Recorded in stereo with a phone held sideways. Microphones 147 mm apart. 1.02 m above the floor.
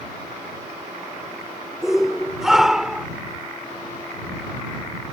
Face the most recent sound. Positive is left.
turn(degrees=-5)  # may be behind; listen again after turning